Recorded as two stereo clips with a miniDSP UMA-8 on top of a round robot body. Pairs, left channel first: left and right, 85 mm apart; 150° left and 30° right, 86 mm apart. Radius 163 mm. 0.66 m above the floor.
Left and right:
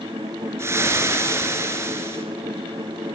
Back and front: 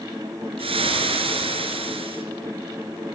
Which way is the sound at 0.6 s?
30° right.